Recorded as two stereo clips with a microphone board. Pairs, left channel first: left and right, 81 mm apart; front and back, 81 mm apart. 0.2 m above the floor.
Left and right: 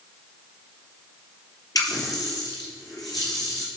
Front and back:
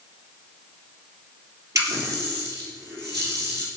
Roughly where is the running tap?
Behind left.